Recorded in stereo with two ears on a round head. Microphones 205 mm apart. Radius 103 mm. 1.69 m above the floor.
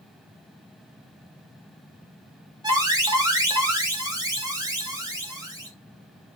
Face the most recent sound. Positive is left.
turn(degrees=-15)  # may be behind; listen again after turning